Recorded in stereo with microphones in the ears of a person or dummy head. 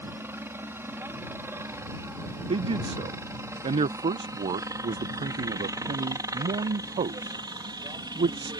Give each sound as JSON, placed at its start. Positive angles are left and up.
{"t": 0.0, "sound": "a helicopter", "side_deg": -10}
{"t": 2.5, "sound": "a man speaking", "side_deg": -30}